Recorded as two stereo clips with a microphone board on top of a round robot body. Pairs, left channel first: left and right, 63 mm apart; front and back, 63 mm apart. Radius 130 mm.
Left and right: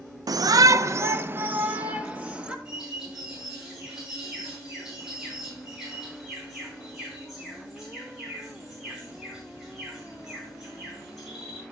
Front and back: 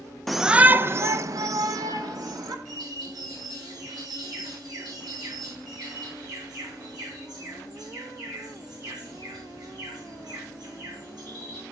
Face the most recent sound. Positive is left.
turn(degrees=-175)